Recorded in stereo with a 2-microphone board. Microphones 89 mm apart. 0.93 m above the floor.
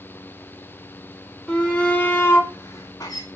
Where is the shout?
10° left (ahead or behind), 2 m; by 3.2 s 45° left (ahead or behind), 2 m.